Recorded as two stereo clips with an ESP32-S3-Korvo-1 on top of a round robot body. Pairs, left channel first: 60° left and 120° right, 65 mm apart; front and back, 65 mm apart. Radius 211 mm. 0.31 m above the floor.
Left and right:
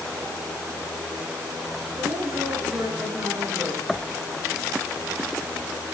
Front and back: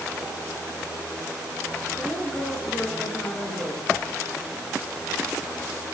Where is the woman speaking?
75° right, 7 m.